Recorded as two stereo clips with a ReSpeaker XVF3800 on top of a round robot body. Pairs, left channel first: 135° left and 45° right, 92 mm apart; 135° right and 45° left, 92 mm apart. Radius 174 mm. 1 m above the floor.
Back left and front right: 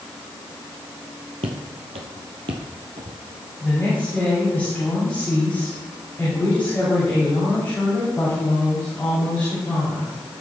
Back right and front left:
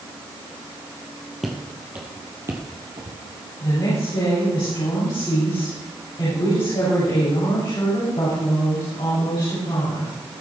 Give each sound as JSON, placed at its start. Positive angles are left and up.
{"t": 1.4, "sound": "footsteps", "azimuth_deg": -45, "distance_m": 1.6}
{"t": 3.6, "sound": "a woman speaking", "azimuth_deg": -155, "distance_m": 7.0}